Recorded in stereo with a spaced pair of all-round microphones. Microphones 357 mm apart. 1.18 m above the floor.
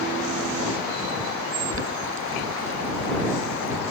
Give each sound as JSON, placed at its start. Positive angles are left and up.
{"t": 1.7, "sound": "boiling", "side_deg": -35}